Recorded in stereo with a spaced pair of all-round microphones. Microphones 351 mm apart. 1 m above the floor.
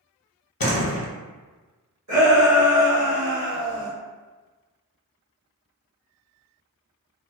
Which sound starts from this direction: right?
A shout, at 2.1 s.